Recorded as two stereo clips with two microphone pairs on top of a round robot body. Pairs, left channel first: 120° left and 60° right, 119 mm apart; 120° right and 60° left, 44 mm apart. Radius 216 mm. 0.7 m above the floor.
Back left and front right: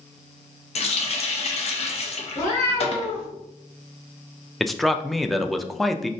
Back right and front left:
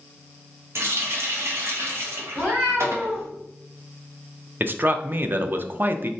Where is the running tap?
85° left, 0.6 m.